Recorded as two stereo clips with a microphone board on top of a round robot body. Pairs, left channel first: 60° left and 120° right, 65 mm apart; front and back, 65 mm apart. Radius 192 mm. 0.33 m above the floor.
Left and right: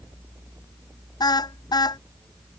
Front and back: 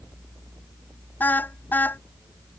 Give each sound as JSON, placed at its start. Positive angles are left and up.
{"t": 1.2, "sound": "a car horn", "azimuth_deg": 65}